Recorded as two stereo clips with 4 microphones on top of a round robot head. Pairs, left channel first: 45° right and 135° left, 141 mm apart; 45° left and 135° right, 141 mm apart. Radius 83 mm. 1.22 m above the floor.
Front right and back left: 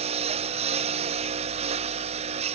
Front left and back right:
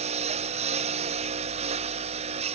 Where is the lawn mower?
Straight behind.